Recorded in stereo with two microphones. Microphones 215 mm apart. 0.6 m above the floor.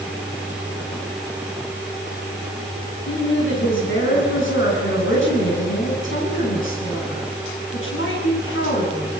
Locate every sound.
3.1 s a woman speaking: 70° left (ahead or behind), 6 m